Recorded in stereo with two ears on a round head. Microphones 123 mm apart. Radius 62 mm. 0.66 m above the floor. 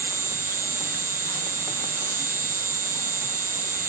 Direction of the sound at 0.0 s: 20° right (ahead or behind).